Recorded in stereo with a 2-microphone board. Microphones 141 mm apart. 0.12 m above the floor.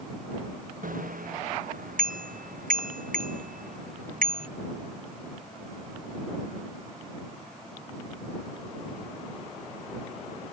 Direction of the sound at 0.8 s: 75° right (ahead or behind).